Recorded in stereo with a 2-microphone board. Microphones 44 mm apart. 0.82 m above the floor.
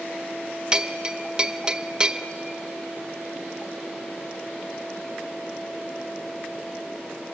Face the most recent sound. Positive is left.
turn(degrees=-20)  # may be behind; listen again after turning